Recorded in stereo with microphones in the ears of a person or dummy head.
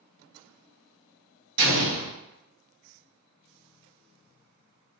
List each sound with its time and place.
1.6 s an explosion: 65° right (ahead or behind), 1.3 m